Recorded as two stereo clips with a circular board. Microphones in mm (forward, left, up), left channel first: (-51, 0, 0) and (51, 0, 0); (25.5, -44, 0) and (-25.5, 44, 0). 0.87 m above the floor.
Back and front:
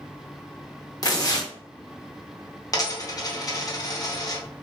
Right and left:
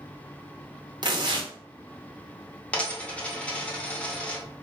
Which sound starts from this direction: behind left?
Tearing paper, at 1.0 s.